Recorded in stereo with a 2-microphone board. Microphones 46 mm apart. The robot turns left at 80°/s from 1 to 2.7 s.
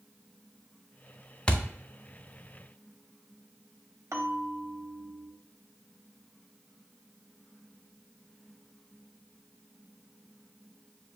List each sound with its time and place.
1.5 s a thud: 20° left (ahead or behind), 0.5 m
4.1 s a bell: 70° right (ahead or behind), 0.8 m